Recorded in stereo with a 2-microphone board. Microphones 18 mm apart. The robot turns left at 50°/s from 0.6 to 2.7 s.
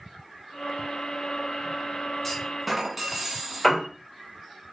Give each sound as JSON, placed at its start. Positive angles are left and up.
{"t": 2.2, "sound": "a clunk", "side_deg": 10, "distance_m": 0.9}
{"t": 3.6, "sound": "a piano", "side_deg": 0, "distance_m": 1.5}